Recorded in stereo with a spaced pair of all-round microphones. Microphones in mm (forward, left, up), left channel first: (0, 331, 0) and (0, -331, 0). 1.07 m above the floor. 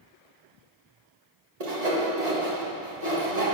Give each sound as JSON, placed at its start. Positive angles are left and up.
{"t": 1.6, "sound": "sawing", "side_deg": -65, "distance_m": 1.9}